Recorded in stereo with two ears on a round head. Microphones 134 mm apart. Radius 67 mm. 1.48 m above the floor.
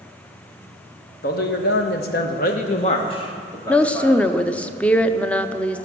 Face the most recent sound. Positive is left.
turn(degrees=10)  # may be behind; listen again after turning